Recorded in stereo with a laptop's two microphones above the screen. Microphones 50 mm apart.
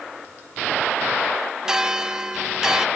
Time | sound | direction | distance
1.6 | a bell | 15° right (ahead or behind) | 0.5 m